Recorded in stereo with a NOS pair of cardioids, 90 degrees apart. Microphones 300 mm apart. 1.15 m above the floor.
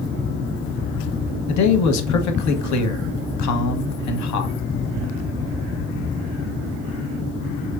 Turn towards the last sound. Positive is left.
turn(degrees=65)